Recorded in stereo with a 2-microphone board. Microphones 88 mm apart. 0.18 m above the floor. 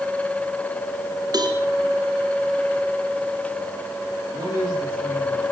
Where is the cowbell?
45° right (ahead or behind), 2.5 m.